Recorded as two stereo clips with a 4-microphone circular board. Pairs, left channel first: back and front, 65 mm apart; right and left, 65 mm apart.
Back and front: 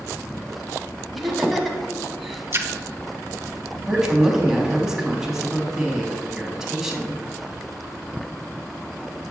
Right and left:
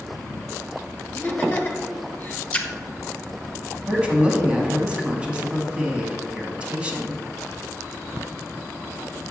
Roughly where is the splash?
Ahead right.